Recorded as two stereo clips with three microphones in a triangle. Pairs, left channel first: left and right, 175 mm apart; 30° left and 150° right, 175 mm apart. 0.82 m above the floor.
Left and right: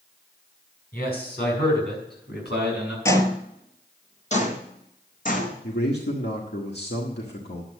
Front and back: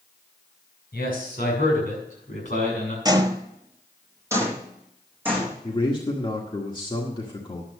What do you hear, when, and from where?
0.9 s a man speaking: 60° left, 5.5 m; by 3.0 s 80° left, 6 m
3.0 s footsteps: 160° left, 1.0 m; by 5.5 s 130° left, 3 m
5.6 s a man speaking: 90° left, 1.6 m